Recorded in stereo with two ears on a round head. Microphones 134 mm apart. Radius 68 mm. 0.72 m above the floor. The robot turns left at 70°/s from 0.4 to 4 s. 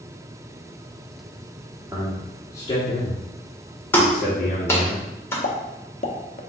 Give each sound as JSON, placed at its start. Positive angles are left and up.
{"t": 1.9, "sound": "a man speaking", "side_deg": -20, "distance_m": 1.1}
{"t": 3.9, "sound": "a clap", "side_deg": 15, "distance_m": 1.5}
{"t": 5.4, "sound": "a pop", "side_deg": 45, "distance_m": 0.6}